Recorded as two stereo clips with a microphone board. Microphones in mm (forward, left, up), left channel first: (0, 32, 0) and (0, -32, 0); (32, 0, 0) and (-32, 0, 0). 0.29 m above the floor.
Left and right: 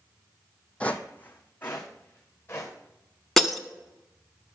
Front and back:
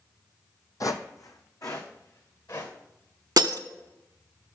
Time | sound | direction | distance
0.8 | footsteps | 20° left | 0.7 m
3.4 | breaking glass | 175° left | 0.6 m